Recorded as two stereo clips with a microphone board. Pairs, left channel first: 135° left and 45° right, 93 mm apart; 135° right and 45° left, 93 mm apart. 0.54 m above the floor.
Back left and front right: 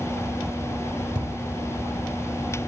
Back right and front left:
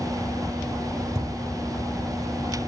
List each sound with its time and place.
1.1 s a thud: 5° right, 1.3 m